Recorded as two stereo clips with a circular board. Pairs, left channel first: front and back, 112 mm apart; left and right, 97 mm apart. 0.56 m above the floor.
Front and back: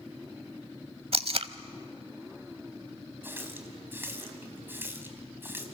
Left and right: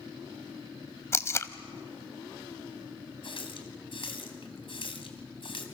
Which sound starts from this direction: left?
A running tap, at 3.2 s.